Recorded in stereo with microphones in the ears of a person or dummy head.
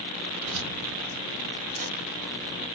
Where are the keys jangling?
75° right (ahead or behind), 1.0 m; by 2.7 s 30° right (ahead or behind), 2.5 m.